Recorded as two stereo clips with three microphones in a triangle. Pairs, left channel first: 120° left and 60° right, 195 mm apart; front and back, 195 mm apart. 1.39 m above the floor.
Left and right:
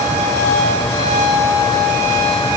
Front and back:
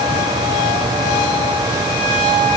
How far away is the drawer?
No drawer in this recording.